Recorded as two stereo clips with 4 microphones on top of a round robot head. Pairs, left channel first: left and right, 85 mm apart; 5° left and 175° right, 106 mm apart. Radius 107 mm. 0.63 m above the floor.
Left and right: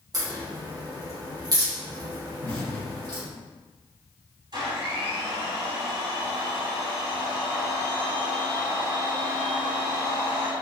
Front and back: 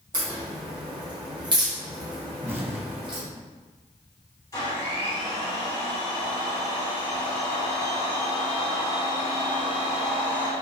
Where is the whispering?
I don't hear whispering.